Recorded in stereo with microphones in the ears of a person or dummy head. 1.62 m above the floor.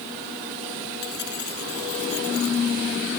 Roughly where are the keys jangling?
Left.